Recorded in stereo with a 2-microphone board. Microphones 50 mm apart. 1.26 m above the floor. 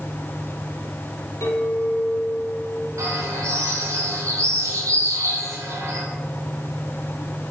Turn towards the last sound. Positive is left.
turn(degrees=-85)